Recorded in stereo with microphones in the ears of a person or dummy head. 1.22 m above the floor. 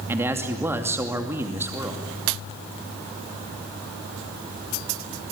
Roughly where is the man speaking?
Centre.